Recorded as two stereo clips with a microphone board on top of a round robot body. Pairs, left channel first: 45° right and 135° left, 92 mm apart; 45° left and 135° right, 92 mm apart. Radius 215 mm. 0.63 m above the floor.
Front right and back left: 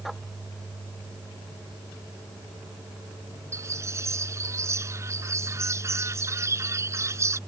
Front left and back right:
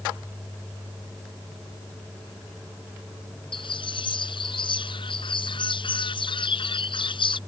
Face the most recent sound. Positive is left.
turn(degrees=75)